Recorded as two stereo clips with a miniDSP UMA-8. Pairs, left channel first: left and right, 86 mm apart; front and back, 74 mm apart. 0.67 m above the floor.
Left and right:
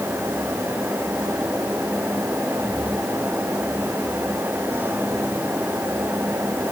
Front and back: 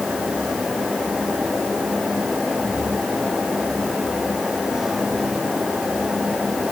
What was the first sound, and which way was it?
Only background noise.